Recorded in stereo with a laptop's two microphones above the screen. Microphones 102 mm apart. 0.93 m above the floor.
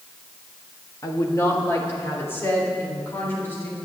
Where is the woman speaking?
35° left (ahead or behind), 1.5 m; by 3.8 s 20° left (ahead or behind), 4 m.